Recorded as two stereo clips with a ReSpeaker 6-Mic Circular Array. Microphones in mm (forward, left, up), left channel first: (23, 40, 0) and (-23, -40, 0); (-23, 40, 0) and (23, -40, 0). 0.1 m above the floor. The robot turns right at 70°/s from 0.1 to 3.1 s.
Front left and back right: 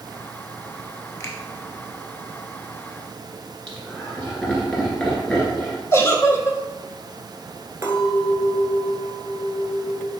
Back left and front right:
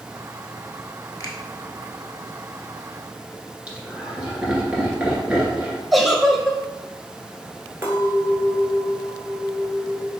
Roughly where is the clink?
Right.